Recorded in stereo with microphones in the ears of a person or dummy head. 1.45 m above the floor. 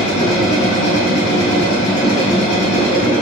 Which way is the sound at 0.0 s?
65° left (ahead or behind).